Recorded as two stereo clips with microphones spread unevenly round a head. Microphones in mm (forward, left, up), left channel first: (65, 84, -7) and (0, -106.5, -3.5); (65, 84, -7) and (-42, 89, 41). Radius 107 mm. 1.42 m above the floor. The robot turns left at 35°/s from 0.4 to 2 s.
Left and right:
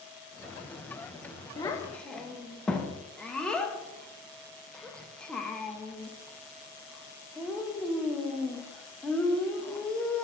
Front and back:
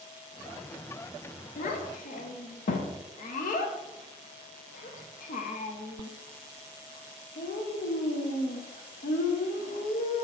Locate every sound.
1.6 s a child speaking: straight ahead, 0.6 m; by 10.2 s 15° right, 0.6 m